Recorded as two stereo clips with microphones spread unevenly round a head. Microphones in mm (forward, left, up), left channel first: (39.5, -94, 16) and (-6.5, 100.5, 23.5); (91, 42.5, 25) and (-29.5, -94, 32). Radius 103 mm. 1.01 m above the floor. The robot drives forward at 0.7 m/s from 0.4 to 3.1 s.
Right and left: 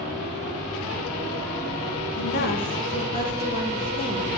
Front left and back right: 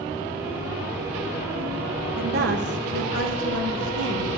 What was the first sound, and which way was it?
A woman speaking, 95° right.